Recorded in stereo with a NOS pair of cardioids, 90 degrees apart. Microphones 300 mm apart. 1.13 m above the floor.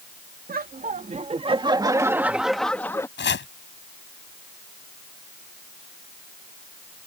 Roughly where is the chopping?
Ahead left.